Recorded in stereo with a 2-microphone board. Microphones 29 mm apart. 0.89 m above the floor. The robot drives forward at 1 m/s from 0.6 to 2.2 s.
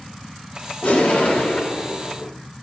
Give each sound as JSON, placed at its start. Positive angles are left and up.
{"t": 0.8, "sound": "an explosion", "side_deg": 60, "distance_m": 4.5}